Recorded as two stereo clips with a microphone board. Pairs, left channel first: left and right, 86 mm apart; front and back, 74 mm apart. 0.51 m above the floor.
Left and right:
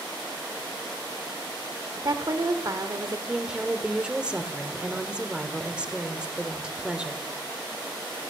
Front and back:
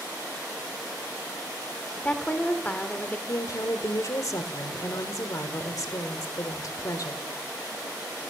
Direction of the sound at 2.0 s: 65° right.